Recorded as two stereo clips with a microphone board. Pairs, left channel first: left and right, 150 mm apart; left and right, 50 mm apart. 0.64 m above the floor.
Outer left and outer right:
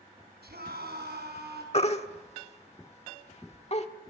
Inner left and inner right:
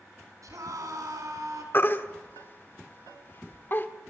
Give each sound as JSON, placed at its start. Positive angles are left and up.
{"t": 0.4, "sound": "a scream", "side_deg": -80, "distance_m": 6.0}
{"t": 1.7, "sound": "a baby crying", "side_deg": 40, "distance_m": 1.4}